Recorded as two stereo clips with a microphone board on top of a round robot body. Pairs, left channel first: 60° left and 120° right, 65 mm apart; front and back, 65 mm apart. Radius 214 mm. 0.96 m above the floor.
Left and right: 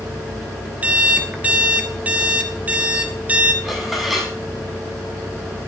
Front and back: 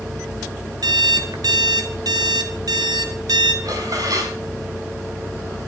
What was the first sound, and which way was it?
An alarm clock, 170° left.